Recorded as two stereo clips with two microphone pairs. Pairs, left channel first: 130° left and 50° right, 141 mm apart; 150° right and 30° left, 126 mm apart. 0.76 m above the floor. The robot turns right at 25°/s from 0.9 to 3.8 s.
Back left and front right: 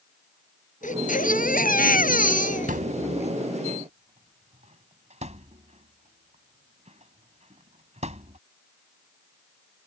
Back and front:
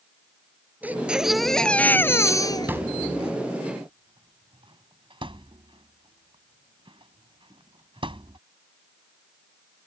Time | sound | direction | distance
0.8 | a baby crying | 110° left | ?
2.7 | a thud | 40° right | ?